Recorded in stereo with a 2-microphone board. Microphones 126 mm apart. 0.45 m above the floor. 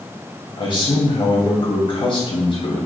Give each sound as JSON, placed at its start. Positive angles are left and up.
{"t": 0.6, "sound": "a man speaking", "side_deg": 45, "distance_m": 2.5}